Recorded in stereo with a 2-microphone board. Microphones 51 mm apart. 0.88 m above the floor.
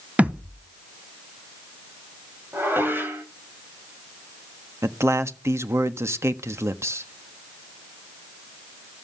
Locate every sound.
0.2 s a thud: 25° right (ahead or behind), 1.2 m
2.5 s dishes clattering: 45° right (ahead or behind), 3.5 m
4.8 s a man speaking: 60° right (ahead or behind), 1.3 m